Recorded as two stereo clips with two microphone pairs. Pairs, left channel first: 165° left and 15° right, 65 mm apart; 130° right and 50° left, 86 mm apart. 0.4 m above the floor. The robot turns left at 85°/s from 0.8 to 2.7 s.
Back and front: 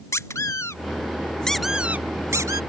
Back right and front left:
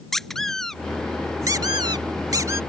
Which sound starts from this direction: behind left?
A squeak, at 0.1 s.